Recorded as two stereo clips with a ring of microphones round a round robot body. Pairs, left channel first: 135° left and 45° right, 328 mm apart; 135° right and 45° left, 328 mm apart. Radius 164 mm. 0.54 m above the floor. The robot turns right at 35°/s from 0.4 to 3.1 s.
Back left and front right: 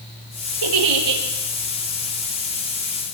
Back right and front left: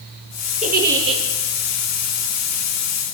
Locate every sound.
0.6 s a giggle: 25° right, 5 m; by 1.2 s 5° right, 5 m